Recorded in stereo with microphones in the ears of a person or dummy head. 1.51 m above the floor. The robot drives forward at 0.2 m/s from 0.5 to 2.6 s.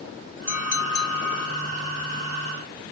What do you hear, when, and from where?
0.5 s a clink: 60° left (ahead or behind), 1.5 m; by 1.7 s 55° left (ahead or behind), 1.6 m